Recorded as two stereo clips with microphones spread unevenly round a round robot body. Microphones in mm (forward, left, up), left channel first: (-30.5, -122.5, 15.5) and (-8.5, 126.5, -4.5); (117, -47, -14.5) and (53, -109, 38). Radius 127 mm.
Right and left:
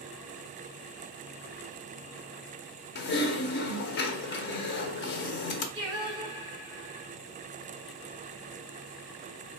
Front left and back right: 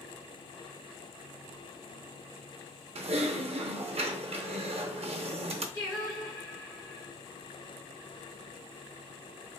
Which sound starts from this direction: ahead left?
Singing, at 5.7 s.